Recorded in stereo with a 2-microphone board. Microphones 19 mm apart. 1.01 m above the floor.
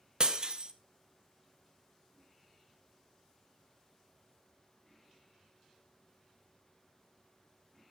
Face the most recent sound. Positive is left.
turn(degrees=-45)  # may be behind; listen again after turning